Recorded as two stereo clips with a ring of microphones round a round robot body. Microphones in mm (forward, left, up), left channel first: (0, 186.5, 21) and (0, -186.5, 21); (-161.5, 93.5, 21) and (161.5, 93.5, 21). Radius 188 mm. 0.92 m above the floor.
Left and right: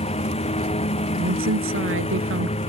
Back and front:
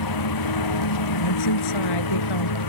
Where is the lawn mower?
165° left.